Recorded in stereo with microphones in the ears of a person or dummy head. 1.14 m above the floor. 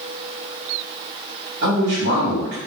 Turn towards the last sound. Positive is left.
turn(degrees=-55)  # may be behind; listen again after turning